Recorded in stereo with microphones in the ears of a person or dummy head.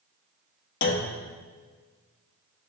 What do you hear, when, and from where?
0.8 s a clunk: 55° left (ahead or behind), 0.9 m